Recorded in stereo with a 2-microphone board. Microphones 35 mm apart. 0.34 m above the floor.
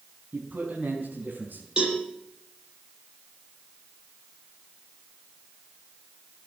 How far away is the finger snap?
No finger snap in this recording.